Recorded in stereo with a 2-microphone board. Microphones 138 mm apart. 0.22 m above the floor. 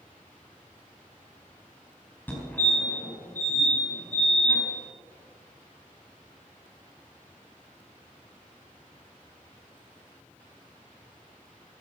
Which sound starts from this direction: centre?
A fire alarm, at 2.3 s.